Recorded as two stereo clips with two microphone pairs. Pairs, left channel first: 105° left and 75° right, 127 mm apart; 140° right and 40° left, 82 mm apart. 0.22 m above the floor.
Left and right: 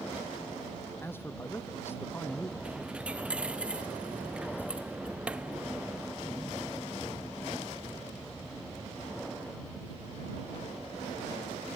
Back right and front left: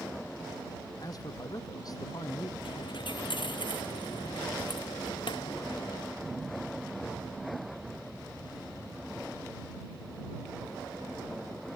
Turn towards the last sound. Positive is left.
turn(degrees=-155)